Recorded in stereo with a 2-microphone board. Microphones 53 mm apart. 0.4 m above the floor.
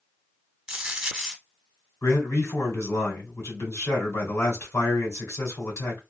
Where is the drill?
No drill in this recording.